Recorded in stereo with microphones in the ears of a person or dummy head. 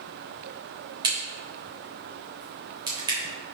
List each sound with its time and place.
1.0 s a crack: 15° right (ahead or behind), 3 m